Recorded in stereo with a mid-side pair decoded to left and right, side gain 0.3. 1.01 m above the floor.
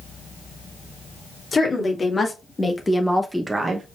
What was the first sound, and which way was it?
A woman speaking, 45° left.